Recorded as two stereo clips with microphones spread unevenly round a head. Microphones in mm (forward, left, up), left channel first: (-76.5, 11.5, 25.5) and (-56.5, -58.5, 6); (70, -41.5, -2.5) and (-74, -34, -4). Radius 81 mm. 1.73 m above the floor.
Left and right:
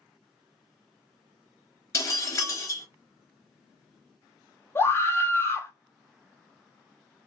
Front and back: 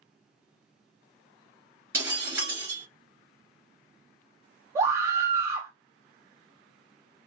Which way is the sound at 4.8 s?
115° left.